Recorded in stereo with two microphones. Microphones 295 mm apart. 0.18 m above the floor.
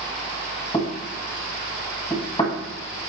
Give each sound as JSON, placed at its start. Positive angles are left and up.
{"t": 0.7, "sound": "knocking", "side_deg": 15, "distance_m": 0.7}